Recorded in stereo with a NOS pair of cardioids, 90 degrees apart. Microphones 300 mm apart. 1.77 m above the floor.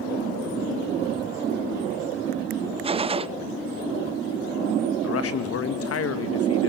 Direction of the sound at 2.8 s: 20° right.